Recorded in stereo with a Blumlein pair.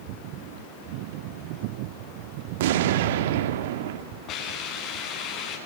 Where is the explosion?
55° right, 1.7 m.